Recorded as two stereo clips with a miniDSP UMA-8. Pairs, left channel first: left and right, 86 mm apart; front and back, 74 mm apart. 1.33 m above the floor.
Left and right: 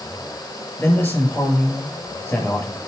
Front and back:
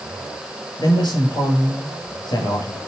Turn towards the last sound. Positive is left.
turn(degrees=25)